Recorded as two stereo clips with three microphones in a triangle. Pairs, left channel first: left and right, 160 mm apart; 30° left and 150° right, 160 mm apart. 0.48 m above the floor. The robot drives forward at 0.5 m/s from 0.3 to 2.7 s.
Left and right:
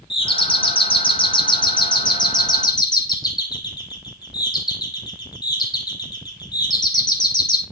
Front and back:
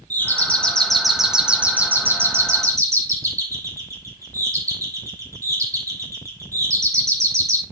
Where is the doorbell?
100° left, 1.6 m; by 7.6 s 145° left, 2 m.